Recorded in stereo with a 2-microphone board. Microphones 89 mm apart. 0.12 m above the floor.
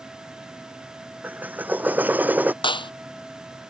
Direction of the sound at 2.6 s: 65° left (ahead or behind).